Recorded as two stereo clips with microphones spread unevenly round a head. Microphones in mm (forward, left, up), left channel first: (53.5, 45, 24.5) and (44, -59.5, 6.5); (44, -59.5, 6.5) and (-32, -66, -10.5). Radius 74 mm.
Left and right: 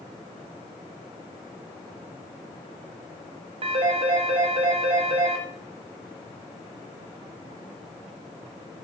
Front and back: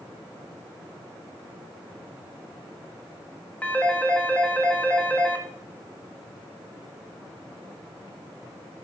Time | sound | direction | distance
3.6 | a phone ringing | 60° right | 2.0 m